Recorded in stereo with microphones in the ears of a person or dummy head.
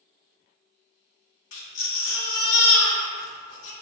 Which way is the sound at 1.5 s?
75° left (ahead or behind).